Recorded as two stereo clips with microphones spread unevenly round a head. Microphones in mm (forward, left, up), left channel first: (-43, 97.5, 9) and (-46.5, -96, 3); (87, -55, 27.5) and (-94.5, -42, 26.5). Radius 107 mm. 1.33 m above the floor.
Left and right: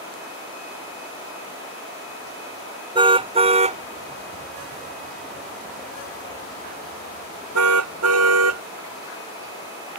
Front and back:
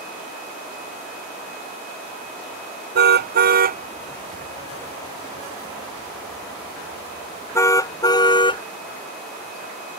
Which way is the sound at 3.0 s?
155° right.